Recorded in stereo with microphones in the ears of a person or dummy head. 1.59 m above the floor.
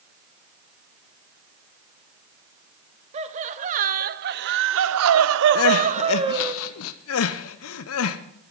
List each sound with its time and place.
3.1 s laughter: 35° right (ahead or behind), 1.2 m; by 6.5 s 20° right (ahead or behind), 0.8 m
5.5 s crying: 80° left, 0.9 m